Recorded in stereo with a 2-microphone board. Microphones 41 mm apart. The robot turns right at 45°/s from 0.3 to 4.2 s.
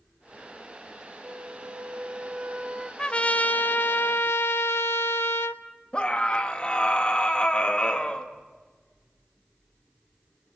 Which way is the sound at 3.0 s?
20° left.